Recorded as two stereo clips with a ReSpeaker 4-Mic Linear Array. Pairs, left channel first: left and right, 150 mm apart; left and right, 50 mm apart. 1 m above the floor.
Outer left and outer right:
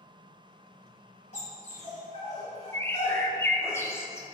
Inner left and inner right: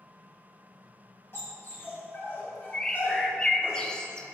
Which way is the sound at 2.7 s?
15° left (ahead or behind).